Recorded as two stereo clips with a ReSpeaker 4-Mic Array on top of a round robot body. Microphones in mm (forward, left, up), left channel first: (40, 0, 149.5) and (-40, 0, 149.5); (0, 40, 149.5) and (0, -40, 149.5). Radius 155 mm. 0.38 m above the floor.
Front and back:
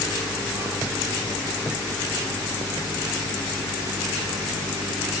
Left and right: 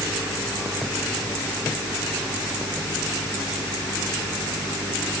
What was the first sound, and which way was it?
Only background noise.